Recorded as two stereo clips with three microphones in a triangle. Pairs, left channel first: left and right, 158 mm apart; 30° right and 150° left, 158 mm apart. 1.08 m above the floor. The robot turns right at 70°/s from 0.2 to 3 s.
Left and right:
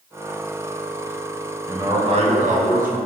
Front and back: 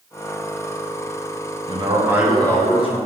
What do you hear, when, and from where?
1.7 s a man speaking: 165° right, 0.6 m; by 3.0 s 75° right, 0.6 m